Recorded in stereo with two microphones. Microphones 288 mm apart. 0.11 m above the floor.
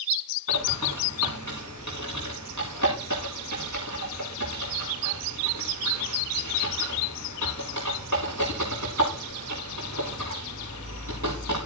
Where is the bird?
80° right, 5 m.